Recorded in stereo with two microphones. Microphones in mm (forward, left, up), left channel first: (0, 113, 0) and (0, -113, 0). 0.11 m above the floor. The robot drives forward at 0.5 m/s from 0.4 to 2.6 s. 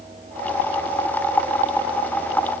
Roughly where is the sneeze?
I don't hear a sneeze.